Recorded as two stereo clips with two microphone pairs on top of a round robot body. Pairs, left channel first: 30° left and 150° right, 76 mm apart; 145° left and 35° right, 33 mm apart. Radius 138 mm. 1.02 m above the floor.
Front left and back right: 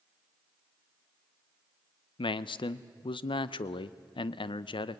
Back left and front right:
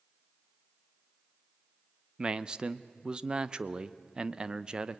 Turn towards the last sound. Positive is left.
turn(degrees=35)